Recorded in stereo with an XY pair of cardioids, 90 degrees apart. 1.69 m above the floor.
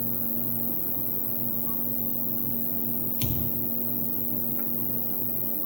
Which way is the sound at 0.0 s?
Straight ahead.